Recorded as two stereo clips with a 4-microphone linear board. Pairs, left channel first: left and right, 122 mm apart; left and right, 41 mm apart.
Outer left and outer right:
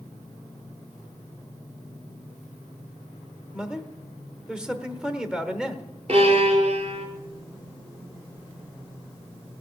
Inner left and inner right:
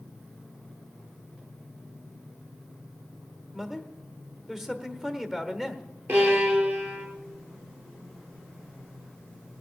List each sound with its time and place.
3.5 s a man speaking: 10° right (ahead or behind), 1.1 m
6.1 s a violin: 60° right (ahead or behind), 3 m